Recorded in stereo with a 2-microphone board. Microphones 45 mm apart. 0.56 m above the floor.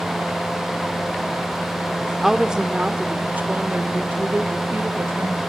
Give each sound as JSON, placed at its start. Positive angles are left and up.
{"t": 2.2, "sound": "a woman speaking", "side_deg": -5, "distance_m": 1.3}